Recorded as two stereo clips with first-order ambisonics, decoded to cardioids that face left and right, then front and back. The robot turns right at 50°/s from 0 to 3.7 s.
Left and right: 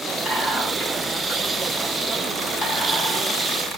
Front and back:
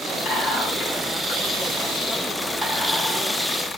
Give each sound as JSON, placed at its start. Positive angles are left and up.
{"t": 0.2, "sound": "whispering", "azimuth_deg": -20, "distance_m": 1.5}